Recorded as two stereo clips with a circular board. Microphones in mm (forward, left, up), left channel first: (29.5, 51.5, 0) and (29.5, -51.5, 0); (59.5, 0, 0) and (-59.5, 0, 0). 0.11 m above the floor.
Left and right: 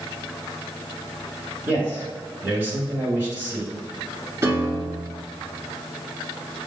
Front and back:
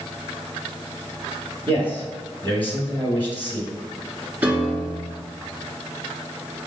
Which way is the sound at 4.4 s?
120° right.